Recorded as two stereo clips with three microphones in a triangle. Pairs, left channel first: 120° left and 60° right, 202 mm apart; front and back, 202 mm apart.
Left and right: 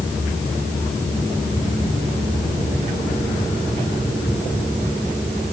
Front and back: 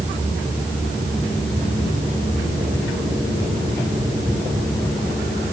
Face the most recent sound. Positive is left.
No sound to turn to.